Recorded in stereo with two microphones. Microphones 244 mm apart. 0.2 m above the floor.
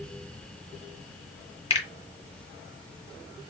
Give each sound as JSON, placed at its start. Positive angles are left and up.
{"t": 1.7, "sound": "a finger snap", "side_deg": 25, "distance_m": 1.4}